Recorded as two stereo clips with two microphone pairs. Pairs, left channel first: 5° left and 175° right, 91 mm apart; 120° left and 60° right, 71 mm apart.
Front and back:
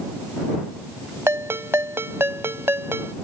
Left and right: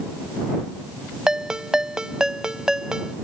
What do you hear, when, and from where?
1.3 s a ringtone: 135° right